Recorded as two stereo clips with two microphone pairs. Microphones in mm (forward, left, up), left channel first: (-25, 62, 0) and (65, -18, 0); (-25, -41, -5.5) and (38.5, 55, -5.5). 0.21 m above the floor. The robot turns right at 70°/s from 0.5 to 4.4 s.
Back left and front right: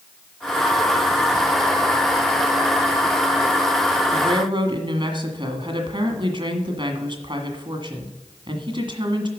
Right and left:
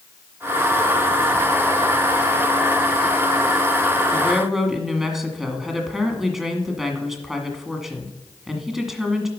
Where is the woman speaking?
50° right, 1.6 m; by 9.3 s 30° right, 1.6 m.